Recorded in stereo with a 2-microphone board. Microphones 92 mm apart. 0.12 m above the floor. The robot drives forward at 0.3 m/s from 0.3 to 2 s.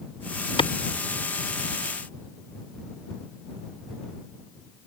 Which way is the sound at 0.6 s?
70° left (ahead or behind).